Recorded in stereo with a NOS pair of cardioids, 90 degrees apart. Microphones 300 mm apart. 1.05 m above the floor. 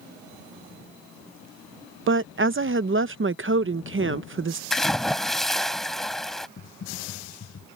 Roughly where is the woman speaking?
Ahead right.